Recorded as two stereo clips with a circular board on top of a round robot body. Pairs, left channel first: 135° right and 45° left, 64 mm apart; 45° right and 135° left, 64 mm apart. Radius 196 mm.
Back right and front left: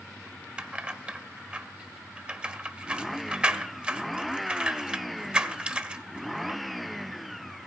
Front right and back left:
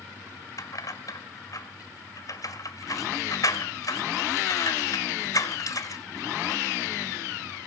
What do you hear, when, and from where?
0.6 s keys jangling: 25° right, 1.5 m